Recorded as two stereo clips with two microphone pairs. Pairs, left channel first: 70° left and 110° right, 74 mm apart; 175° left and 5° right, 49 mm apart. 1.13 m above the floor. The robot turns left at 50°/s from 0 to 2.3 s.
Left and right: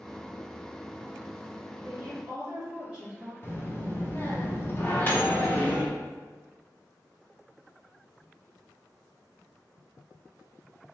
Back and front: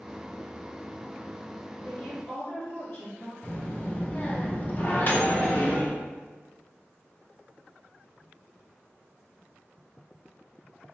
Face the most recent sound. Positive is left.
turn(degrees=130)